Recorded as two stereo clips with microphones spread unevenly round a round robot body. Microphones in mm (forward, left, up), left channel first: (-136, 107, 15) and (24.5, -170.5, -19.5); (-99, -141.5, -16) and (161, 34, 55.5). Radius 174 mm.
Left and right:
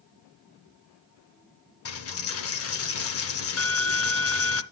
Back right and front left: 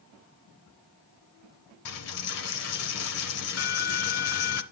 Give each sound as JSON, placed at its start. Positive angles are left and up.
{"t": 1.9, "sound": "a dropped coin", "azimuth_deg": 160, "distance_m": 0.7}